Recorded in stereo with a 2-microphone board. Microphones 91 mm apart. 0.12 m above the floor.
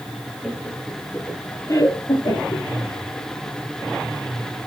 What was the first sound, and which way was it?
Laughter, 5° right (ahead or behind).